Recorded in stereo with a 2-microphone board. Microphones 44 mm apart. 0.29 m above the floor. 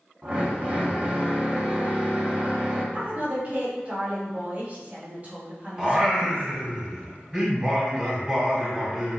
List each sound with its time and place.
0.2 s a drill: 30° right (ahead or behind), 1.8 m
2.9 s a woman speaking: 35° right (ahead or behind), 2 m
5.8 s singing: 10° right (ahead or behind), 1.8 m